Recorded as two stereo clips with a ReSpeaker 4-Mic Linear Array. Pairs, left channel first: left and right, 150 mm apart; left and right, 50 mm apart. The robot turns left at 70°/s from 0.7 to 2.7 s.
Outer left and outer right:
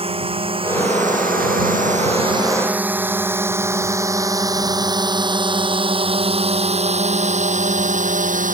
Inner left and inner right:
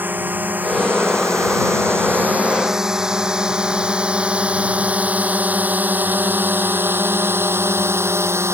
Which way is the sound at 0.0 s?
40° right (ahead or behind).